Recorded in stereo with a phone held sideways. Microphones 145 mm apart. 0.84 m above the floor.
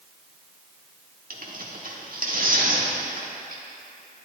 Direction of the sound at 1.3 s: 70° right (ahead or behind).